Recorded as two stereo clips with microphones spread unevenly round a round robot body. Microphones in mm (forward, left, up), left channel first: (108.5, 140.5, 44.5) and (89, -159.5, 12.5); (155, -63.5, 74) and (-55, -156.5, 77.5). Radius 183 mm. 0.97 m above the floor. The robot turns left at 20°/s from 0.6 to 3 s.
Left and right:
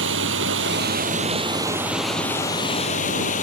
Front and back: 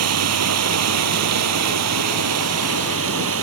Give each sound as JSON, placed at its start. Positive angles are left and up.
{"t": 0.0, "sound": "running water", "azimuth_deg": -155}